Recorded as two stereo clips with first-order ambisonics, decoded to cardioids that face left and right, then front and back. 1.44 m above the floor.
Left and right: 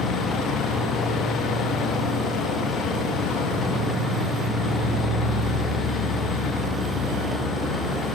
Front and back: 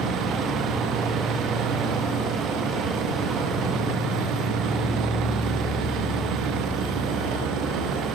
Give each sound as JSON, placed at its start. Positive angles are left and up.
{"t": 0.0, "sound": "an insect", "azimuth_deg": 135, "distance_m": 5.5}